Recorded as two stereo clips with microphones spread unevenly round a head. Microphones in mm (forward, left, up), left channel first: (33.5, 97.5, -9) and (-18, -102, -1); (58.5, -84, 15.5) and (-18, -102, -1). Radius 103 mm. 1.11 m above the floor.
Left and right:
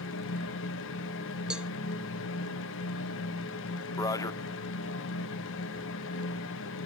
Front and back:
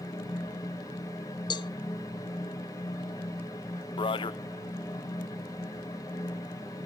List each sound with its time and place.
0.0 s a fan: 80° left, 1.0 m
1.5 s a cowbell: 20° right, 0.5 m
4.0 s a man speaking: straight ahead, 0.7 m